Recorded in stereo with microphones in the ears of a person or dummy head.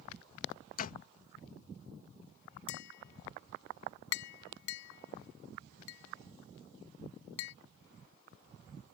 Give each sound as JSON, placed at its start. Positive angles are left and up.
{"t": 0.8, "sound": "a door slam", "side_deg": 45}
{"t": 2.7, "sound": "tapping", "side_deg": 70}